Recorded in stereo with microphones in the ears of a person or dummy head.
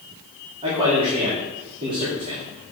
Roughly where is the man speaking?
Right.